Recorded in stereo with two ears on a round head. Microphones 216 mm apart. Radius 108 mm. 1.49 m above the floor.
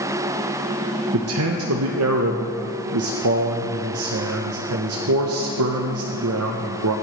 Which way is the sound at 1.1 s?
65° right (ahead or behind).